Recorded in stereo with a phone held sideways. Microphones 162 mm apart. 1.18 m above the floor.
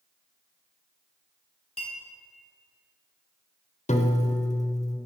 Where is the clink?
35° left (ahead or behind), 3 m.